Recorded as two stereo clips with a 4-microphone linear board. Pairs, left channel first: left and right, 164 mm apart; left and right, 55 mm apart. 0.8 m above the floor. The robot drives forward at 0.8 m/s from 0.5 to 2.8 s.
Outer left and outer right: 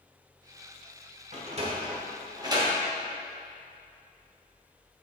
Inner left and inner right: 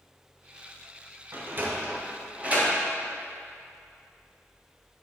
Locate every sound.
1.3 s a sliding door: 45° right (ahead or behind), 1.2 m; by 2.7 s 25° right (ahead or behind), 2 m